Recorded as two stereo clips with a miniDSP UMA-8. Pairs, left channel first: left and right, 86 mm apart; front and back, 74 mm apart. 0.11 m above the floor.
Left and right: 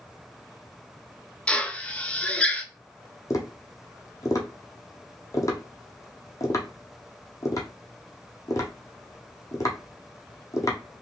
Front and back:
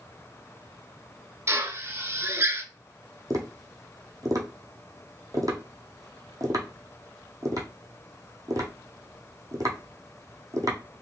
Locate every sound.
1.5 s a drill: 160° left, 0.8 m
3.3 s tapping: 140° left, 1.5 m